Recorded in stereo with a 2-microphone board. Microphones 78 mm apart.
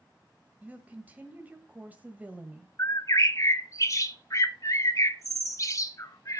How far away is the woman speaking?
About 1.3 m.